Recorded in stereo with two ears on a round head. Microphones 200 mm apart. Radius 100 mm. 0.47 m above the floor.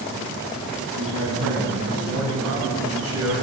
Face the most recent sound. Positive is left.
turn(degrees=-80)